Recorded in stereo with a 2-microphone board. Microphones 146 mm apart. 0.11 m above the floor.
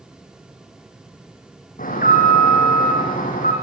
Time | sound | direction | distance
1.8 | an alarm | 70° left (ahead or behind) | 6.5 m